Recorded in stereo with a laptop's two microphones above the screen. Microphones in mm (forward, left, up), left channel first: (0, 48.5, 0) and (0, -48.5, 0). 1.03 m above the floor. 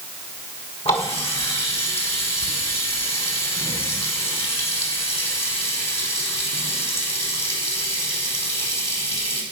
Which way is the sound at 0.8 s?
85° left.